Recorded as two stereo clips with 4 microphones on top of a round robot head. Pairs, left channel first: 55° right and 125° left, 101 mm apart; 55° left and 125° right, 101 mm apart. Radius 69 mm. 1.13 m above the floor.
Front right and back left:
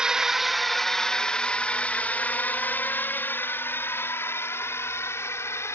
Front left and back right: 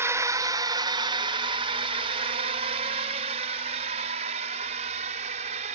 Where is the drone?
160° right; by 5.8 s 120° right.